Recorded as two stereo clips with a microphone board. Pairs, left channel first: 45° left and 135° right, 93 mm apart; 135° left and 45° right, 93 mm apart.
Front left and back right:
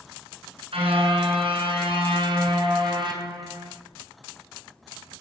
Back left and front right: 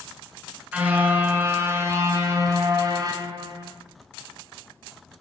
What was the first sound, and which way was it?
A car horn, 120° right.